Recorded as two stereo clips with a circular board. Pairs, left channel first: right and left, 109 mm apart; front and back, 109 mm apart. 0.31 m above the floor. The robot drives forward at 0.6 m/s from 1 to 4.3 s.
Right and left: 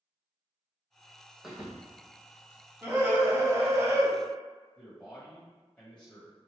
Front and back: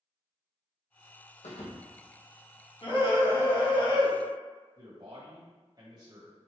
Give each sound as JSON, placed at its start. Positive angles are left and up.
{"t": 1.4, "sound": "a thud", "azimuth_deg": 5, "distance_m": 2.0}
{"t": 2.8, "sound": "a scream", "azimuth_deg": 25, "distance_m": 3.0}
{"t": 4.8, "sound": "a man speaking", "azimuth_deg": -165, "distance_m": 1.7}